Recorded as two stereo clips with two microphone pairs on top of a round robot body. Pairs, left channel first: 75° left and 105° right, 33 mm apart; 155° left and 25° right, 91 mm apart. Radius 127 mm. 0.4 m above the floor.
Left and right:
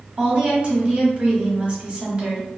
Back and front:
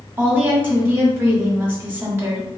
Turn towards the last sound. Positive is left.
turn(degrees=-75)